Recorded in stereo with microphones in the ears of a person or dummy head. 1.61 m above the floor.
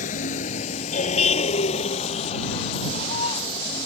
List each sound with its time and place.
0.0 s a vehicle: 40° left (ahead or behind); by 3.9 s 30° left (ahead or behind)